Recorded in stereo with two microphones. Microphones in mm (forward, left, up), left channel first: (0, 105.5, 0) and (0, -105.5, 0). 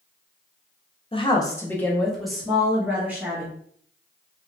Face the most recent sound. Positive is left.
turn(degrees=-10)  # may be behind; listen again after turning